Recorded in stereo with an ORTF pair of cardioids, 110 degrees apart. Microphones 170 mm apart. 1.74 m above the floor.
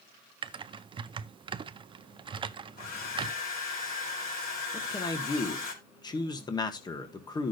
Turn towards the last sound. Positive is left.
turn(degrees=25)